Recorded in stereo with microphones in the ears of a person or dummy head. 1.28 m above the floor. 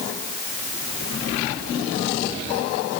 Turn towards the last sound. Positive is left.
No sound to turn to.